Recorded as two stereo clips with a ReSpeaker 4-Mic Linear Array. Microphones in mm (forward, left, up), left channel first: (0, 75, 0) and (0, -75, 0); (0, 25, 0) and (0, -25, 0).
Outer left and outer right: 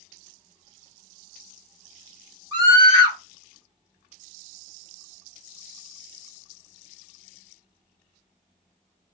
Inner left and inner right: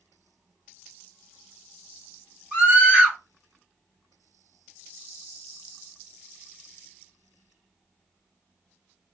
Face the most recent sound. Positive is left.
turn(degrees=-30)  # may be behind; listen again after turning